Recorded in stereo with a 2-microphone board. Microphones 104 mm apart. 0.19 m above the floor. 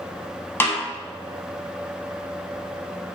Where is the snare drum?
20° left (ahead or behind), 0.6 m.